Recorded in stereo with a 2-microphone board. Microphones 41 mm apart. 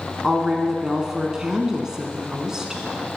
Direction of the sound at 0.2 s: 15° right (ahead or behind).